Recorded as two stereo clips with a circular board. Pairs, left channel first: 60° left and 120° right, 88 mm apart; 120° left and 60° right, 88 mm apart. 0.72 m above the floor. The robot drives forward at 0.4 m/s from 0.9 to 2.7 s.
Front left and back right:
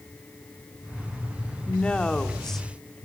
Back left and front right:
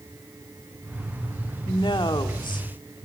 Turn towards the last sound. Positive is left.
turn(degrees=145)